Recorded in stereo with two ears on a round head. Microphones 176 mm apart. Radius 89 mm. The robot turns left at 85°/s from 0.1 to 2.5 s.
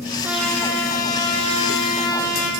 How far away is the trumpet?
About 5.5 m.